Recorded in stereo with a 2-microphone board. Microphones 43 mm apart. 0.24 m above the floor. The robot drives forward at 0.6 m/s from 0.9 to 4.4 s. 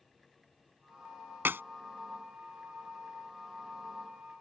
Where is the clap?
60° right (ahead or behind).